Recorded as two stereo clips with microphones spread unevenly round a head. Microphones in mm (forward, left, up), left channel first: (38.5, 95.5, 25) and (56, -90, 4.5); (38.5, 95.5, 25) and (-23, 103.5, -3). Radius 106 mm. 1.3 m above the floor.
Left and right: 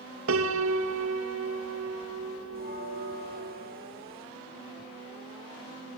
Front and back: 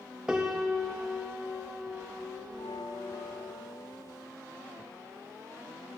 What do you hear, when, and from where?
0.3 s a piano: 100° right, 1.8 m
2.5 s a bell: 45° right, 6.5 m